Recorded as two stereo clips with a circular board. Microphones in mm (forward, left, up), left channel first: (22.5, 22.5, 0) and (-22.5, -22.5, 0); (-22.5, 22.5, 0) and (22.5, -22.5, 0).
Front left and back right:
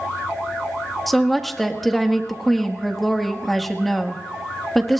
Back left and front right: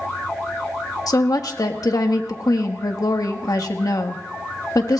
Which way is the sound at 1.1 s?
130° left.